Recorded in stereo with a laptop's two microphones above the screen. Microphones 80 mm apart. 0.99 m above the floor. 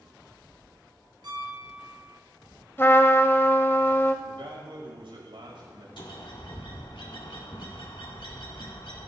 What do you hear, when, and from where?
1.2 s a piano: 65° right (ahead or behind), 4.5 m
2.8 s a trumpet: 30° left (ahead or behind), 0.8 m
4.2 s a man speaking: 85° right, 5 m
6.0 s a bird: 75° left (ahead or behind), 1.8 m